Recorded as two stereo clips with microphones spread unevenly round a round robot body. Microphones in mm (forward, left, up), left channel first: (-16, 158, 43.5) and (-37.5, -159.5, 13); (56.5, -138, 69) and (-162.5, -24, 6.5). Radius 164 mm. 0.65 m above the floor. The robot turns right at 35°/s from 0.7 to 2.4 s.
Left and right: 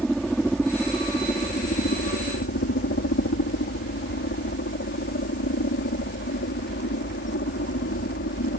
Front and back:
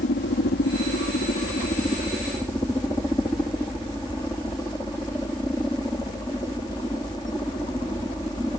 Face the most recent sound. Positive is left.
turn(degrees=60)